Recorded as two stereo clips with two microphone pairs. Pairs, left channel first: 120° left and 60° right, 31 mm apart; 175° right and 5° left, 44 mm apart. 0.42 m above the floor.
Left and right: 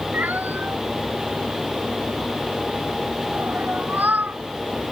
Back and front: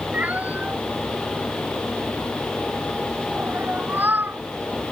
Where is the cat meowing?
50° right; by 4.4 s 35° right.